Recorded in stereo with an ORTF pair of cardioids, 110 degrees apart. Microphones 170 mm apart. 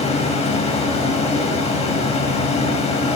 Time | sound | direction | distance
0.0 | a fan | 35° left | 1.7 m